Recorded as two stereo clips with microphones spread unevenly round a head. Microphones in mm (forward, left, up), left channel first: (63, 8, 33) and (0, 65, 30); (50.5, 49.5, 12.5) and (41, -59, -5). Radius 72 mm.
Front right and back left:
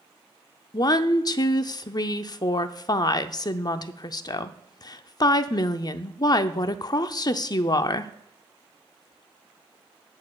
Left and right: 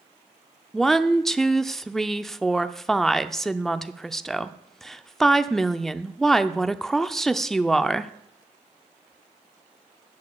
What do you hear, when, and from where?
0.7 s a woman speaking: straight ahead, 0.6 m